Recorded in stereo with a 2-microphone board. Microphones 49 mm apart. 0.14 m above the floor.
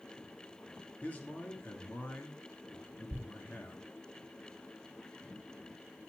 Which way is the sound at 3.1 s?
55° right (ahead or behind).